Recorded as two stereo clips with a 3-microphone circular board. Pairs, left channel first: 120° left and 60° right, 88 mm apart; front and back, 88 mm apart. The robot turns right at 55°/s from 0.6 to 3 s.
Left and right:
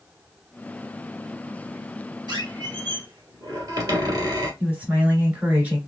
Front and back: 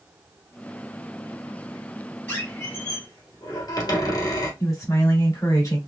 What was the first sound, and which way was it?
A squeak, 65° right.